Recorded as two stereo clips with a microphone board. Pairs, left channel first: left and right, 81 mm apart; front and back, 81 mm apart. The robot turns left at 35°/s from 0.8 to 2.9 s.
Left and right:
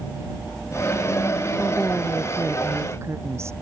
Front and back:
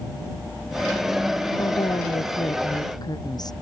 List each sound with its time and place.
1.6 s a woman speaking: 10° left; by 3.5 s 35° right